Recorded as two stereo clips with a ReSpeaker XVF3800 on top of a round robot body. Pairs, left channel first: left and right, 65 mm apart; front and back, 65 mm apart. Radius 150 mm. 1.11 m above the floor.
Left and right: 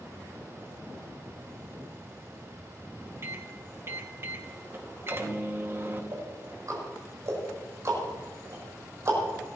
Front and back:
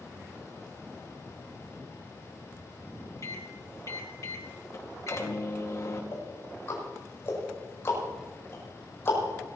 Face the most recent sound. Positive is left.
turn(degrees=-50)